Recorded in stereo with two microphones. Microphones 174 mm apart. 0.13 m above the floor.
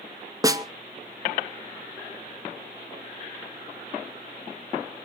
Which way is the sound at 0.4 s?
20° right (ahead or behind).